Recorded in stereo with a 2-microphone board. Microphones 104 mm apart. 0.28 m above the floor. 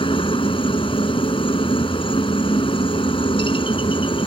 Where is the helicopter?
55° left (ahead or behind).